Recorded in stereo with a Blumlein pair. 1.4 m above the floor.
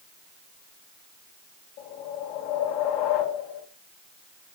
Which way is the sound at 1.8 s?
50° left.